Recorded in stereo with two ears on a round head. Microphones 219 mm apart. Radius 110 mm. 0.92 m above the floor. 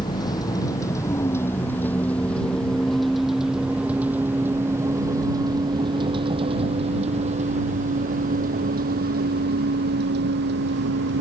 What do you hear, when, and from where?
0.0 s a vehicle: 15° left (ahead or behind); by 11.2 s 50° right (ahead or behind)